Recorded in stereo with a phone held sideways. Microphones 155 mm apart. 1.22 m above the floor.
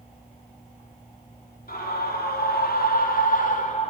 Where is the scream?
75° left (ahead or behind), 3.5 m; by 3.9 s 50° left (ahead or behind), 3 m.